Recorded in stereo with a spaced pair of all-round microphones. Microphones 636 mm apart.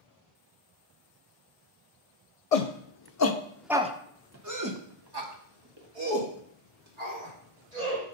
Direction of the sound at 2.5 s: 70° left (ahead or behind).